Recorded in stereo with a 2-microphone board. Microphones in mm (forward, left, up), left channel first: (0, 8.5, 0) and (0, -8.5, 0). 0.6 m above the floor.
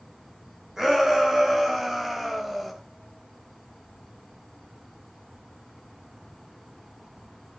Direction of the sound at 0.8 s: 30° right (ahead or behind).